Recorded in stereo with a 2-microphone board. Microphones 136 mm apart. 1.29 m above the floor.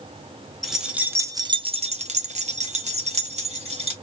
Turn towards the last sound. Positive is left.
turn(degrees=-50)  # may be behind; listen again after turning